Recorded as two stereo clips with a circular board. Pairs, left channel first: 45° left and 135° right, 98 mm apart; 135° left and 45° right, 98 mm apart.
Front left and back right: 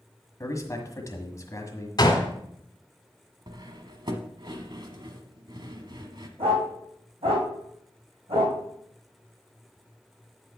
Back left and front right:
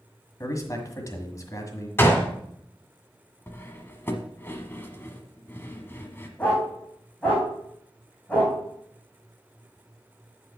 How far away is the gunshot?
About 1.7 m.